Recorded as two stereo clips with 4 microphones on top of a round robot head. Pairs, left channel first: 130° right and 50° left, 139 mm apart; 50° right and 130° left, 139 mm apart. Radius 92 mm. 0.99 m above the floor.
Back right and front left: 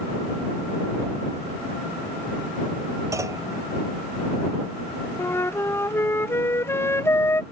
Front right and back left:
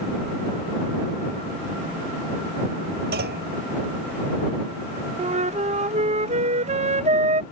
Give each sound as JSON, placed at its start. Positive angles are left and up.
{"t": 3.1, "sound": "a clunk", "azimuth_deg": 120}
{"t": 5.2, "sound": "a flute", "azimuth_deg": 160}